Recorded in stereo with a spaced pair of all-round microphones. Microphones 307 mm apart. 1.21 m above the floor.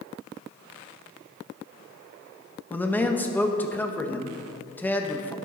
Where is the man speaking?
5° left (ahead or behind), 1.1 m.